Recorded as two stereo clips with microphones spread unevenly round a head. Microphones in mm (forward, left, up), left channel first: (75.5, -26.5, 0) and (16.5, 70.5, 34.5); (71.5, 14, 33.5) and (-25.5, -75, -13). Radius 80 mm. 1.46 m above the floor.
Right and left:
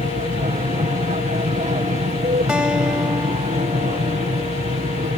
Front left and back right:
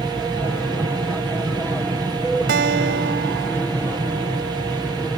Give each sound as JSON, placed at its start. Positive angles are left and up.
{"t": 0.0, "sound": "an aircraft", "azimuth_deg": 135}
{"t": 2.5, "sound": "a guitar", "azimuth_deg": -155}